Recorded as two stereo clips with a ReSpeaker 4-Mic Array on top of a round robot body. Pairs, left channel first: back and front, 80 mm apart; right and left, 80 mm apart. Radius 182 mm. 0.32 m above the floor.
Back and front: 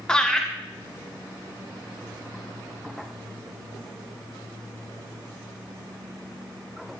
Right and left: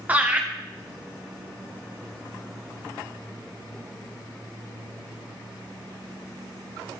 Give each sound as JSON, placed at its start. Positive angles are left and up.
{"t": 0.1, "sound": "laughter", "azimuth_deg": 115, "distance_m": 1.4}